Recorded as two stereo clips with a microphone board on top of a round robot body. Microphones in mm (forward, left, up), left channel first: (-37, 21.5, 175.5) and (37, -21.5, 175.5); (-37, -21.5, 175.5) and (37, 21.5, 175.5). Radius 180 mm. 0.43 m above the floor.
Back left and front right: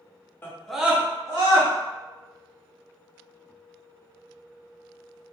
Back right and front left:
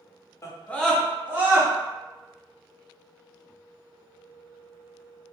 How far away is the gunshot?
I don't hear a gunshot.